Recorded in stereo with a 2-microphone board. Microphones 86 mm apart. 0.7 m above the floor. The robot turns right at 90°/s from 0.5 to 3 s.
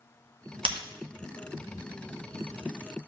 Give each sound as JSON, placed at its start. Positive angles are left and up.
{"t": 0.7, "sound": "breaking glass", "side_deg": -75, "distance_m": 1.6}